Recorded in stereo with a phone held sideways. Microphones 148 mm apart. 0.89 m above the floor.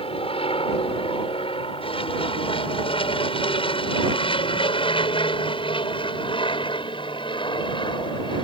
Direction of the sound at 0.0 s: 40° left (ahead or behind).